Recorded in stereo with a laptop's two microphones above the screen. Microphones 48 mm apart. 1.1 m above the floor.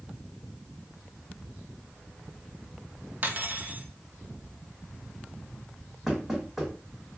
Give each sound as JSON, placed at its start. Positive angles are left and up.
{"t": 3.2, "sound": "cutlery clinking", "side_deg": -35, "distance_m": 0.6}
{"t": 6.1, "sound": "knocking", "side_deg": -5, "distance_m": 1.6}